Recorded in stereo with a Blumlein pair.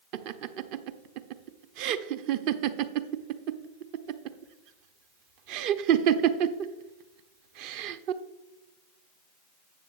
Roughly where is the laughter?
Ahead right.